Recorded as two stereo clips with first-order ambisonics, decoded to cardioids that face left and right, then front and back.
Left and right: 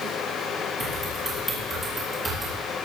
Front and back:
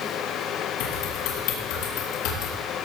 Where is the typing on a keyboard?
5° right, 5 m.